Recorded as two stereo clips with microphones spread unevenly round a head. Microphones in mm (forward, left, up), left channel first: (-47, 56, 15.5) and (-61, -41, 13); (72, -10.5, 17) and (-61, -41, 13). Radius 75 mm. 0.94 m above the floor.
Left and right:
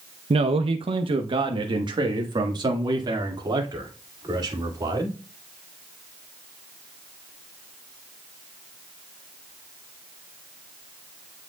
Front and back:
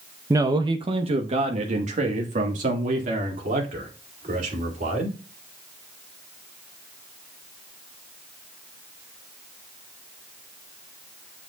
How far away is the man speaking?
About 0.6 m.